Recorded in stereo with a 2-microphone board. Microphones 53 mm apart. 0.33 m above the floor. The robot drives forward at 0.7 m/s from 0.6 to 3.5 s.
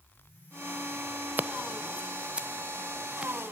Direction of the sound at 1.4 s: 40° right (ahead or behind).